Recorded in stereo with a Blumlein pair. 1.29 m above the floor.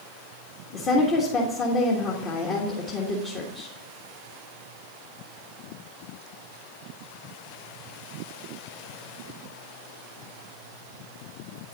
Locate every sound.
0.7 s a woman speaking: 30° left, 1.4 m